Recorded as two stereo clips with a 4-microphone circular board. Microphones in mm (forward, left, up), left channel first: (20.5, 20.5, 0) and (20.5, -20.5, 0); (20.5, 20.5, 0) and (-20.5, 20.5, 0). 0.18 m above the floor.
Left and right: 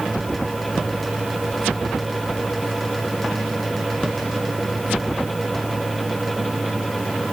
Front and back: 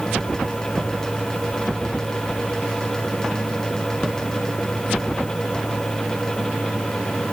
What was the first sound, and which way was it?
Only background noise.